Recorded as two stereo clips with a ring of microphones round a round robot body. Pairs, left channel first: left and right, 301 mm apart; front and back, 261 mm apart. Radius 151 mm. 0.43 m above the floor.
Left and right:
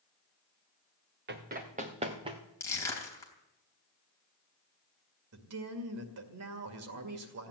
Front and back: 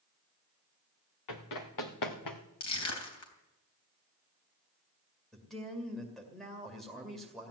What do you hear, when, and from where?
1.3 s running footsteps: 30° right, 2.5 m; by 2.4 s 15° right, 2.5 m
2.6 s crushing: 10° left, 3.5 m
5.3 s a man speaking: 90° right, 2 m